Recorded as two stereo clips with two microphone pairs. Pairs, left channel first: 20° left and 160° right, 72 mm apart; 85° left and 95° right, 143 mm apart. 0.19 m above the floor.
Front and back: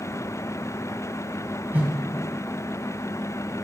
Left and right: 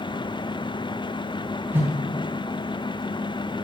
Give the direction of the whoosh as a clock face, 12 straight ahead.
5 o'clock.